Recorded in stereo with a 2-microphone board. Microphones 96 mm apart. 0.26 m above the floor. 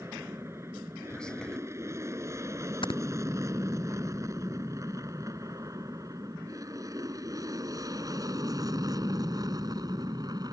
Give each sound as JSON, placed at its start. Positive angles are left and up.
{"t": 0.0, "sound": "an aircraft", "side_deg": -30}
{"t": 1.1, "sound": "whispering", "side_deg": 10}
{"t": 2.8, "sound": "snoring", "side_deg": 65}